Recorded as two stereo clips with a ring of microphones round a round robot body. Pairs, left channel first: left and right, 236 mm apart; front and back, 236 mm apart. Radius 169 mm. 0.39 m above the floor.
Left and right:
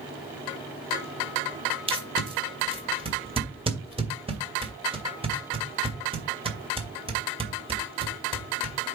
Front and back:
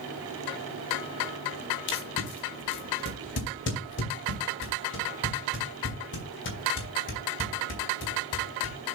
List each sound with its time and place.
1.9 s tape being pulled: 30° right, 2.5 m